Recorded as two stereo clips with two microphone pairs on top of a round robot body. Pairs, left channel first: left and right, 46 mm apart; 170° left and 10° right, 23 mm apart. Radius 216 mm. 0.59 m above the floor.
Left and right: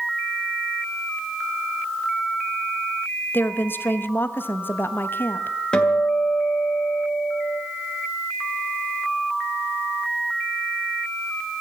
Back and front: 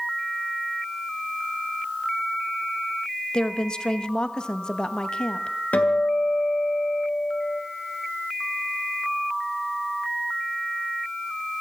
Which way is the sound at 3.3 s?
120° left.